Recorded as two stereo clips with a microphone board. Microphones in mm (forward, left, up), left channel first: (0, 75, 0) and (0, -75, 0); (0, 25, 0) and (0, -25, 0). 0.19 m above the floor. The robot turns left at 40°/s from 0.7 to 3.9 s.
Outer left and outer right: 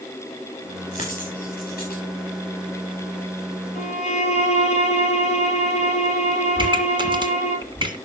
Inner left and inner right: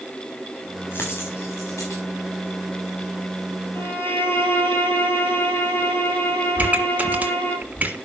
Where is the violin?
50° left (ahead or behind), 4 m; by 7.6 s 45° left (ahead or behind), 4 m.